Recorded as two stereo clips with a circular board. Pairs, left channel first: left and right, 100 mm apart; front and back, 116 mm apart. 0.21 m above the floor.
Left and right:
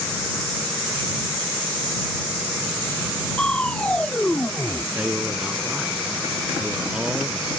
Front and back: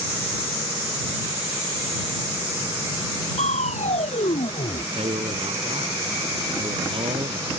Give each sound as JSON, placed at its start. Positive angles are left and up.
{"t": 3.4, "sound": "crushing", "azimuth_deg": 10}
{"t": 5.0, "sound": "a man speaking", "azimuth_deg": -170}